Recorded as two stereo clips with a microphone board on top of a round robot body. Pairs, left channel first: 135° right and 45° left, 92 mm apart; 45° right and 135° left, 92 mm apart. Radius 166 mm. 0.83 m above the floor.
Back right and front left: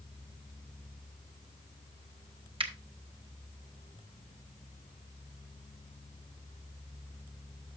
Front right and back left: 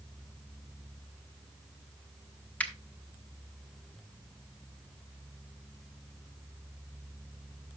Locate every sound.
2.6 s a finger snap: 30° left, 1.4 m